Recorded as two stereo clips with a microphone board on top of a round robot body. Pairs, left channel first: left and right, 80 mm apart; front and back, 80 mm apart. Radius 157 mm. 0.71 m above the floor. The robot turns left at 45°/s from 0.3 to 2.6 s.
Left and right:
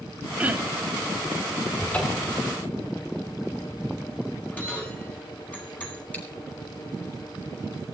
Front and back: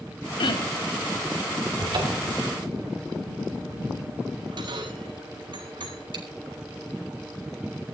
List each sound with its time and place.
0.4 s throat clearing: 15° right, 2.5 m; by 0.9 s 40° right, 2.5 m
1.8 s a cupboard door: 170° left, 4.5 m; by 2.4 s 145° left, 4.5 m
4.5 s a bell: 160° left, 9.5 m
6.1 s chewing: 160° left, 4 m